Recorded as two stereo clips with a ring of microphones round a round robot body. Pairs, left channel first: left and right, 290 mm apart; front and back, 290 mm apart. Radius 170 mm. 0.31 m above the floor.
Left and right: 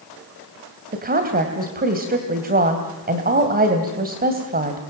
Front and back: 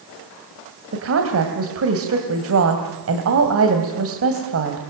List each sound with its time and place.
0.9 s a woman speaking: 145° right, 2.5 m